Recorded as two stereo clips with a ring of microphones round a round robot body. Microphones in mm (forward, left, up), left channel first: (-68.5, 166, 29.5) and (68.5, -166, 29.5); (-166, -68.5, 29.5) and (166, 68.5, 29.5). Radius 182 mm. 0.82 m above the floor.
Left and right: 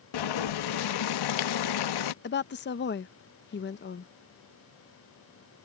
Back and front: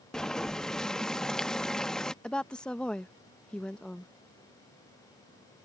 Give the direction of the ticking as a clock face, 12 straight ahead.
No ticking in this recording.